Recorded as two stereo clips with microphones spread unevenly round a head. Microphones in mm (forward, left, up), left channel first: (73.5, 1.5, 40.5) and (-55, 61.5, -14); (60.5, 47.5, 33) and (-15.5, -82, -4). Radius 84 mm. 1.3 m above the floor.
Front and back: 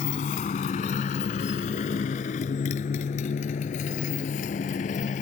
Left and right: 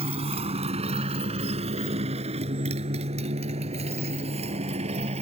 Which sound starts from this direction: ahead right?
A motorcycle, at 0.0 s.